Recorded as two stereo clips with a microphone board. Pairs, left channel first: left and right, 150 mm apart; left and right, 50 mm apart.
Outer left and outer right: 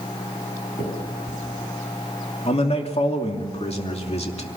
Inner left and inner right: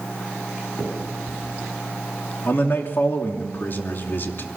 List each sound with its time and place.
0.8 s a finger snap: 60° left (ahead or behind), 8.5 m
2.5 s a man speaking: 45° left (ahead or behind), 2.5 m